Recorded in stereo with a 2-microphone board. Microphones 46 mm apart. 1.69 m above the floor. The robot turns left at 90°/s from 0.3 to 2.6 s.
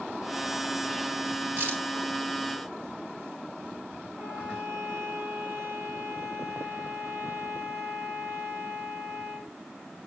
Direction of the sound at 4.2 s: 75° right (ahead or behind).